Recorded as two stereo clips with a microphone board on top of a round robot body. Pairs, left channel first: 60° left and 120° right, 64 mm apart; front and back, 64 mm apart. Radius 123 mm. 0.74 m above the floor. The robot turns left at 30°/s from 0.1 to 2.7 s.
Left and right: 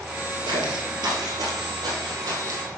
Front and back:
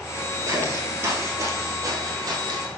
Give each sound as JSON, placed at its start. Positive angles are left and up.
{"t": 0.5, "sound": "footsteps", "azimuth_deg": -135, "distance_m": 1.1}